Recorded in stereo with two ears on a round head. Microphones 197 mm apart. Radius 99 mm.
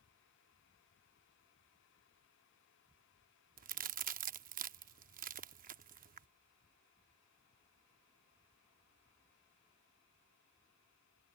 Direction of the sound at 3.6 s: 40° right (ahead or behind).